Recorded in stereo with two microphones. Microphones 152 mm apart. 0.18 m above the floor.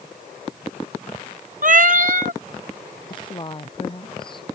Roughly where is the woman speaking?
Left.